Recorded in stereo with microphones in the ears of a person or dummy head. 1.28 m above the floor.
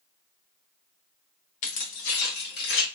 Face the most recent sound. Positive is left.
turn(degrees=65)  # may be behind; listen again after turning